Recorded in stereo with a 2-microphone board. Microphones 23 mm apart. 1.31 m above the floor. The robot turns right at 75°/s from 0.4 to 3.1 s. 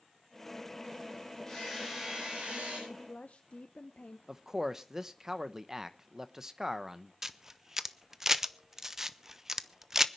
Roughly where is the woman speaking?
Left.